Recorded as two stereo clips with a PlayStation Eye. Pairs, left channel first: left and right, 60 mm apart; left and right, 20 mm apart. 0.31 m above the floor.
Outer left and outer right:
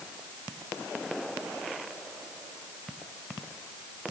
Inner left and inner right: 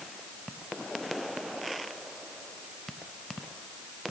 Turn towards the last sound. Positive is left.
No sound to turn to.